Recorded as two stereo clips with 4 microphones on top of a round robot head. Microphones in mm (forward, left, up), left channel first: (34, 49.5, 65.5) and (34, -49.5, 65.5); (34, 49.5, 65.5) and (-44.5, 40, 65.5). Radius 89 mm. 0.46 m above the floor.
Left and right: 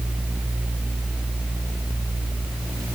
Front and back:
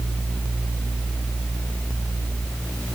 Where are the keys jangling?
No keys jangling in this recording.